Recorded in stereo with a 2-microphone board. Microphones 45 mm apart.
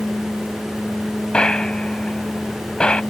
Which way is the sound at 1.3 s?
20° left (ahead or behind).